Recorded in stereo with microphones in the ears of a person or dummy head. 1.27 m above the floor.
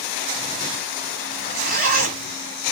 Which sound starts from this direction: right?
A zipper, at 1.3 s.